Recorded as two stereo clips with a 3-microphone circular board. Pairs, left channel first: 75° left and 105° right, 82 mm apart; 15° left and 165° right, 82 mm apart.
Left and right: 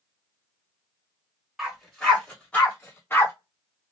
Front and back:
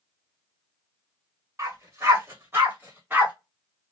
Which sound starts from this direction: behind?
A dog barking, at 1.6 s.